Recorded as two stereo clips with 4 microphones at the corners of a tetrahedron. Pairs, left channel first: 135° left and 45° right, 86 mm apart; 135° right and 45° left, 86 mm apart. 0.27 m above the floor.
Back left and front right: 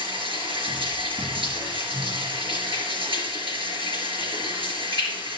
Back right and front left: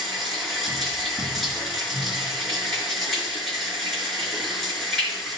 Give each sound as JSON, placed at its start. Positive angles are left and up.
{"t": 0.0, "sound": "running water", "azimuth_deg": -45, "distance_m": 4.5}